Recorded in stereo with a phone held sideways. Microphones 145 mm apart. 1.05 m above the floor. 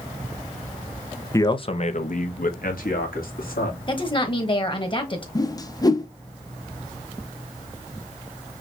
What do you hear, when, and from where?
1.3 s a man speaking: 20° left (ahead or behind), 0.6 m; by 3.8 s 80° left, 2 m
3.9 s a woman speaking: 35° left (ahead or behind), 1.2 m
5.3 s a whoosh: 25° left (ahead or behind), 0.5 m